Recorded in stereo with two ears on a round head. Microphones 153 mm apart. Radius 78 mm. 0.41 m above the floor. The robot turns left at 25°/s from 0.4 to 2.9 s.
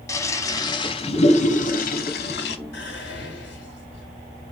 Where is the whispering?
70° left (ahead or behind), 3 m.